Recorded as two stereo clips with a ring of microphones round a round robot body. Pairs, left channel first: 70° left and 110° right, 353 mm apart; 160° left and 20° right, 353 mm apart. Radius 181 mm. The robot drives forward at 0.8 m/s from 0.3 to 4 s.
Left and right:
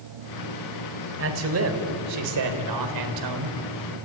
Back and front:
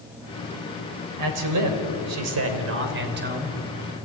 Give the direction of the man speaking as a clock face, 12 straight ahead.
2 o'clock.